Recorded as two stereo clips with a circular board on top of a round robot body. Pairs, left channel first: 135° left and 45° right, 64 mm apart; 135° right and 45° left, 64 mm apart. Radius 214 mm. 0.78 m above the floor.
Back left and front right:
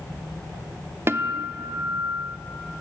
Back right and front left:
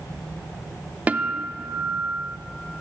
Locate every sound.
1.1 s a guitar: 15° right, 0.9 m